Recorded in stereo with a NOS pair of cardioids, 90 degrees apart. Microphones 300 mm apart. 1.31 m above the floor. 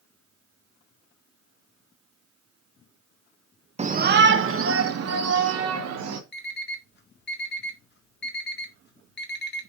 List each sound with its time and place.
3.8 s a shout: 20° right, 0.9 m; by 6.2 s 60° right, 3 m
6.3 s an alarm clock: 35° left, 1.8 m